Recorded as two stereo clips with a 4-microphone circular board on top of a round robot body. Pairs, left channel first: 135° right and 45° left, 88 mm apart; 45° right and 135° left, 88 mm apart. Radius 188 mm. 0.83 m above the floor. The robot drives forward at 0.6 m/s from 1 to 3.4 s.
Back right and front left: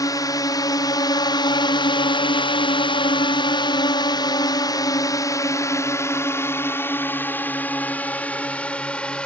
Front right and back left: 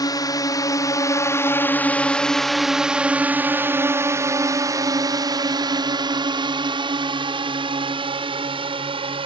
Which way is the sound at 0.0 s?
90° right.